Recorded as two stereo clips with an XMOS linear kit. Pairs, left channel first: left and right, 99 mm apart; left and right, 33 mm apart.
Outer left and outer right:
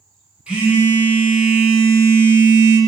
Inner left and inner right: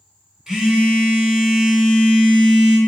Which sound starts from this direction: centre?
A phone buzzing, at 0.5 s.